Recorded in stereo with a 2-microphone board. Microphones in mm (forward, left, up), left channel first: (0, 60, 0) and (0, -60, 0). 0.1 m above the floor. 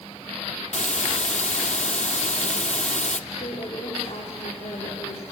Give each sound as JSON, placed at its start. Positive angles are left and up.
{"t": 0.7, "sound": "a hiss", "side_deg": 70, "distance_m": 0.7}
{"t": 3.3, "sound": "a woman speaking", "side_deg": 65, "distance_m": 9.5}